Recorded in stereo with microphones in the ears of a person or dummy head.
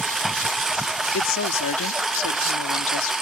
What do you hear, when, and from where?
0.0 s a lawn mower: centre (ahead or behind); by 3.2 s 5° right (ahead or behind)
1.1 s a woman speaking: 70° left (ahead or behind)